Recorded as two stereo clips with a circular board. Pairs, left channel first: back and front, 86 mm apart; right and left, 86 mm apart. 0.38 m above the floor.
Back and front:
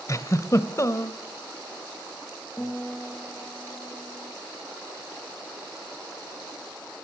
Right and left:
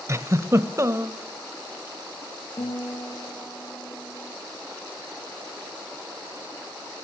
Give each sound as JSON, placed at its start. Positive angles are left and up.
{"t": 0.1, "sound": "a giggle", "azimuth_deg": 140, "distance_m": 1.1}
{"t": 2.6, "sound": "a guitar", "azimuth_deg": -95, "distance_m": 7.5}